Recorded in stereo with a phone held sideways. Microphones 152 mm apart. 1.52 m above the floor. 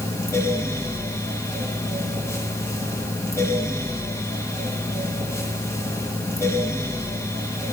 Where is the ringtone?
No ringtone in this recording.